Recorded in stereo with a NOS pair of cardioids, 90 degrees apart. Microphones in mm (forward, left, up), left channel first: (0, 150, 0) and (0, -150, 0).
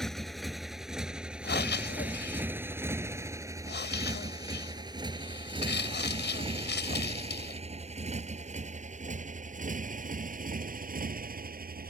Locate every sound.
0.0 s a motorcycle: straight ahead; by 11.9 s 30° right
1.4 s breathing: 35° left